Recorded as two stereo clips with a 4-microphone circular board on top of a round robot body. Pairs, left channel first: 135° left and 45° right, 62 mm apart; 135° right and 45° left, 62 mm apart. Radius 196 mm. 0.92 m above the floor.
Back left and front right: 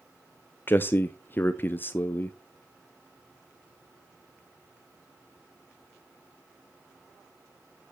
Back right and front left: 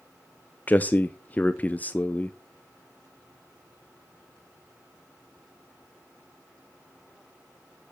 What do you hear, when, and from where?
0.7 s a man speaking: 170° left, 0.6 m